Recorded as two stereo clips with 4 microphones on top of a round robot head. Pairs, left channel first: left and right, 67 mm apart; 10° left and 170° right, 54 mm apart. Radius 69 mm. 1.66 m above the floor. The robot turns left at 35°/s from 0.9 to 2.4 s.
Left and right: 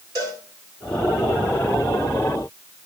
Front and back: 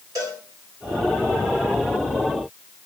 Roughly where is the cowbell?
Behind right.